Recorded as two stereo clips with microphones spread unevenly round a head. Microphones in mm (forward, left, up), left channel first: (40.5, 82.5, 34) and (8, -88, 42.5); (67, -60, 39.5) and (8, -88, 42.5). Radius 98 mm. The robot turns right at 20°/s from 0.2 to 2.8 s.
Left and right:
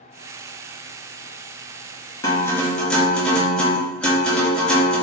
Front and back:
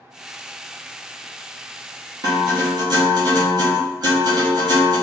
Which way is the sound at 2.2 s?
150° left.